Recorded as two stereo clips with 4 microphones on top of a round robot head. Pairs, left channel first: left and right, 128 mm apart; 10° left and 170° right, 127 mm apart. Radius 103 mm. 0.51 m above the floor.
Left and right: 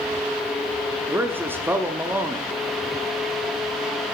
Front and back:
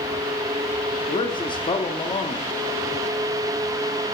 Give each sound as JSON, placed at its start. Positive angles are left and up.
{"t": 1.1, "sound": "a man speaking", "azimuth_deg": -20, "distance_m": 1.1}